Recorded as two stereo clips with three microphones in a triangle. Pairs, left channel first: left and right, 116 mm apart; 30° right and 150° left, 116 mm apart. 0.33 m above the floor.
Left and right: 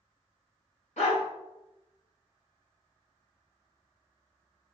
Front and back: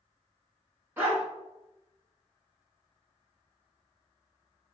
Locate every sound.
1.0 s a dog barking: 80° left, 1.6 m